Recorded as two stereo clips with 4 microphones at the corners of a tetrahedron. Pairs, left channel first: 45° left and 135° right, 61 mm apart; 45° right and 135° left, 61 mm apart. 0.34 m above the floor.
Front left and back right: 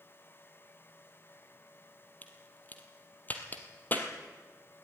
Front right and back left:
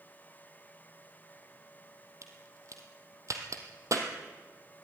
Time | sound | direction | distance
2.2 | a crack | 105° left | 2.5 m